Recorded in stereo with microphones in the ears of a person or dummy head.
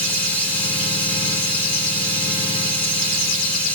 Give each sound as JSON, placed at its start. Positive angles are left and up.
{"t": 0.0, "sound": "running water", "side_deg": 5, "distance_m": 3.0}